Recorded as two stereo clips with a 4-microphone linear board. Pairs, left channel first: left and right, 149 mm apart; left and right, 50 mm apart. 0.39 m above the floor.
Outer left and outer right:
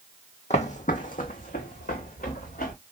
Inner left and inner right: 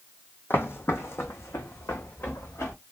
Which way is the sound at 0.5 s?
50° left (ahead or behind).